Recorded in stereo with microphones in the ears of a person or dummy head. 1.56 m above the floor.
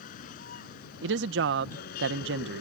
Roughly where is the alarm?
No alarm in this recording.